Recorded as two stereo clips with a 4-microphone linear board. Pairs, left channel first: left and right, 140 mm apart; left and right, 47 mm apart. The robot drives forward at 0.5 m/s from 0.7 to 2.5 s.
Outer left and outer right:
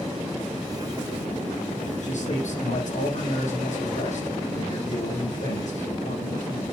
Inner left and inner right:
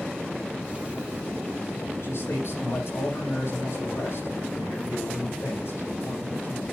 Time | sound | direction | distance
2.0 | a man speaking | 60° left (ahead or behind) | 6.5 m